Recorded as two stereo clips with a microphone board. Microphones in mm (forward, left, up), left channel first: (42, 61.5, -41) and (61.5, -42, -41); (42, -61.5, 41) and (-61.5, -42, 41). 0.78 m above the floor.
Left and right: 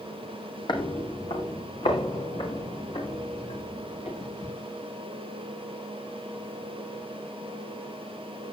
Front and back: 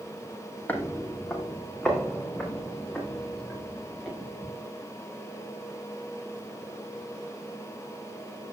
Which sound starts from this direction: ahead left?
Footsteps, at 0.7 s.